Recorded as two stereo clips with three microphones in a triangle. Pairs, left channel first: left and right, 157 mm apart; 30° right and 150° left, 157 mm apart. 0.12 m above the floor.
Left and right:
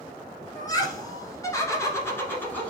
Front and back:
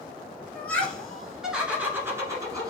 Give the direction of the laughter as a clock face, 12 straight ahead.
11 o'clock.